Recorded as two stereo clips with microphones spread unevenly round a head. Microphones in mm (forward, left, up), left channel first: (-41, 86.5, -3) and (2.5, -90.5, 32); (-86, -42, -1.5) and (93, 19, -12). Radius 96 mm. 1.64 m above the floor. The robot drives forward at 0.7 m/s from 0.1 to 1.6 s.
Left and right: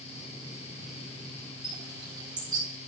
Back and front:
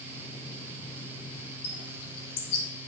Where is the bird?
145° right, 4.5 m.